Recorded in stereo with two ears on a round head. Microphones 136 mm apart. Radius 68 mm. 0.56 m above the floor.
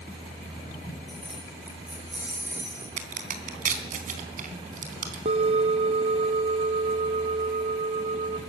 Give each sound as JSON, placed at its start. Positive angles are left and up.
{"t": 1.1, "sound": "keys jangling", "side_deg": 0, "distance_m": 5.5}
{"t": 3.0, "sound": "a crack", "side_deg": -55, "distance_m": 3.5}
{"t": 5.2, "sound": "a bell", "side_deg": -40, "distance_m": 0.9}